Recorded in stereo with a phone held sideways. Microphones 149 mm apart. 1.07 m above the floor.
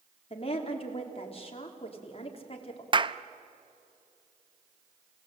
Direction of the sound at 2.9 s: 35° right (ahead or behind).